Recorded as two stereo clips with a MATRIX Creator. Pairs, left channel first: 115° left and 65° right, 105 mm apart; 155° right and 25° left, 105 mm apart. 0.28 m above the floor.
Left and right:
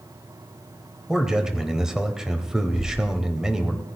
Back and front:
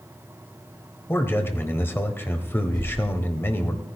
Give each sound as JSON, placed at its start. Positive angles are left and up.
{"t": 1.1, "sound": "a man speaking", "azimuth_deg": -140, "distance_m": 1.0}
{"t": 2.7, "sound": "a whoosh", "azimuth_deg": -75, "distance_m": 5.5}